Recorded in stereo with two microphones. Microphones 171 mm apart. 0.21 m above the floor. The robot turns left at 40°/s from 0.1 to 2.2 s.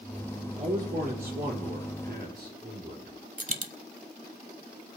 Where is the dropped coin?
50° right (ahead or behind), 0.8 m.